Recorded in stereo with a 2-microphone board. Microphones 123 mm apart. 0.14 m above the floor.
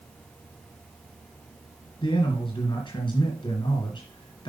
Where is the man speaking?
40° left (ahead or behind), 2 m.